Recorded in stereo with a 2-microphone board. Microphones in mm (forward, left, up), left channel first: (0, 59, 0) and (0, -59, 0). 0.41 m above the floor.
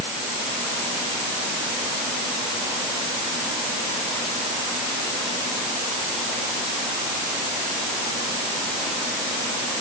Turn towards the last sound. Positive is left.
No sound to turn to.